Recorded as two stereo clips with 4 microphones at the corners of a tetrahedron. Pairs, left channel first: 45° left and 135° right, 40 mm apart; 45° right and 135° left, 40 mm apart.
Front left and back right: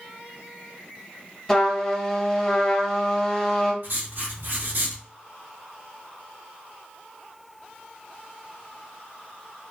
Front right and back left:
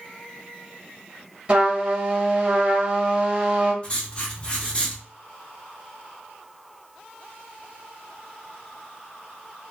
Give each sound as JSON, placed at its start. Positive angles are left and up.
{"t": 1.5, "sound": "a trumpet", "azimuth_deg": 120, "distance_m": 1.0}
{"t": 3.8, "sound": "writing", "azimuth_deg": -105, "distance_m": 0.7}